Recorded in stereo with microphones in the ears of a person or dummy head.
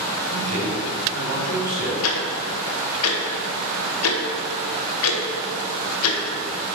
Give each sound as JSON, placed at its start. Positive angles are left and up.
{"t": 0.3, "sound": "a man speaking", "side_deg": -60, "distance_m": 3.0}
{"t": 2.0, "sound": "ticking", "side_deg": 80, "distance_m": 0.9}